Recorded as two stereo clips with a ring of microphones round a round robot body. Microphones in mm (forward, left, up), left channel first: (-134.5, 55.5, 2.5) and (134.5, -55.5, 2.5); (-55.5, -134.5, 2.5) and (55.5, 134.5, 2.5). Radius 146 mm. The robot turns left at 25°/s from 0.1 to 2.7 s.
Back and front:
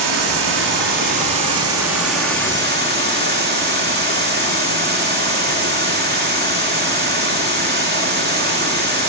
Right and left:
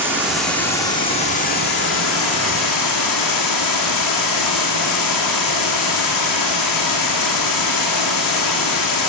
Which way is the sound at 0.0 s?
15° right.